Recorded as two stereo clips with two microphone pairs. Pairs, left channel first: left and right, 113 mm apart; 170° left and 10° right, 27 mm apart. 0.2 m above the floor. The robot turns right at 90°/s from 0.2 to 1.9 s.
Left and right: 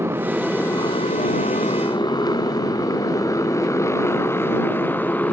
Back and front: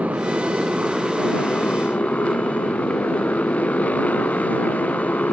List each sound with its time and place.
0.0 s a motorcycle: 20° right; by 5.3 s 165° left